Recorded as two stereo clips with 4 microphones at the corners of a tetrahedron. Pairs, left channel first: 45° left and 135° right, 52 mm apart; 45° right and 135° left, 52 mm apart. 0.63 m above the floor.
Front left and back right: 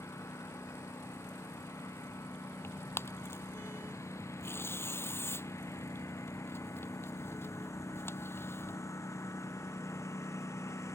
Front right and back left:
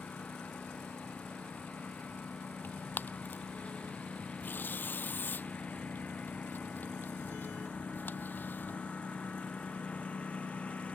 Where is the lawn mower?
25° left.